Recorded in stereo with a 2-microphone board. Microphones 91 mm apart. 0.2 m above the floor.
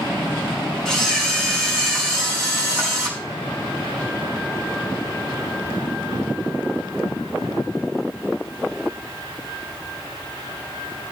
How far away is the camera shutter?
About 5 m.